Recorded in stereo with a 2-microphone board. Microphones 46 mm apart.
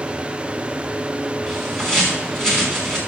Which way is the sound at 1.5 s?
10° left (ahead or behind).